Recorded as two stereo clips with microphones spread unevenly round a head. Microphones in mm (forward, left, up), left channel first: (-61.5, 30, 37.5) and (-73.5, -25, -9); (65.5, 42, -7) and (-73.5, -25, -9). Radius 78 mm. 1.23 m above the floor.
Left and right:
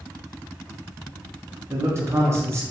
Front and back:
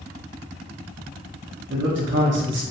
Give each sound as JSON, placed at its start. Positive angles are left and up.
{"t": 1.7, "sound": "a man speaking", "azimuth_deg": -135, "distance_m": 0.7}